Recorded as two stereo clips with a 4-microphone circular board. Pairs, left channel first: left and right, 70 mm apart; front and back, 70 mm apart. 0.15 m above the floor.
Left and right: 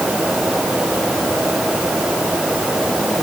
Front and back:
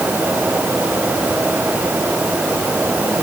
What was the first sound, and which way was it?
Only background noise.